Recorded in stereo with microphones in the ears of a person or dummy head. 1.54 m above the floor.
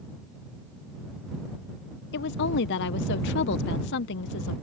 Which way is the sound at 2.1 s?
65° left (ahead or behind).